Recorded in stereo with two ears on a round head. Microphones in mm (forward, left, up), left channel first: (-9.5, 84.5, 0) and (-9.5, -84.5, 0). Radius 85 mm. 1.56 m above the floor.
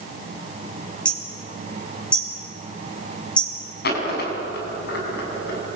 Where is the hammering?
5° left (ahead or behind), 5 m.